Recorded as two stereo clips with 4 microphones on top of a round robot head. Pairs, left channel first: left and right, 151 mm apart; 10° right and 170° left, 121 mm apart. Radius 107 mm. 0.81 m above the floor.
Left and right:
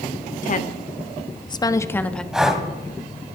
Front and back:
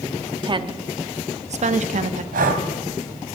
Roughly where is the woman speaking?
Behind left.